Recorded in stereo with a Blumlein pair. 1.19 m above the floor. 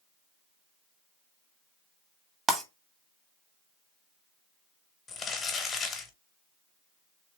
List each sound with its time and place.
2.5 s breaking glass: 15° right, 0.8 m
5.1 s crumpling: 20° left, 0.9 m